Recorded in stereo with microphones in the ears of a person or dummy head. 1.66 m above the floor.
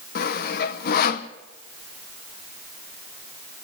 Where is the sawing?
60° left (ahead or behind), 1.0 m.